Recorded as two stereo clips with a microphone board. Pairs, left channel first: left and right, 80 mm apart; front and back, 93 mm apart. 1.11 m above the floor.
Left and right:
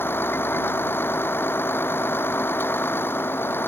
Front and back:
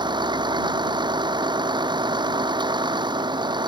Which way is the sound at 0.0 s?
150° left.